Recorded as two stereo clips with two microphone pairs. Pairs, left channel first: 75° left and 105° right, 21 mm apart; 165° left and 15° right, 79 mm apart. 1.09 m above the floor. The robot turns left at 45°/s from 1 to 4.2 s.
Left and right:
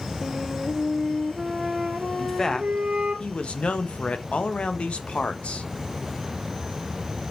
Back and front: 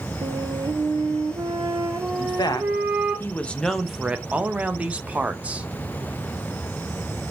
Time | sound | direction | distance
0.2 | a flute | 5° right | 1.1 m
2.2 | a man speaking | 150° left | 0.7 m